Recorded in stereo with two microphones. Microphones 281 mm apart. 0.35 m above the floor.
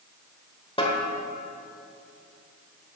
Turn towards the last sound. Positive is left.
turn(degrees=20)  # may be behind; listen again after turning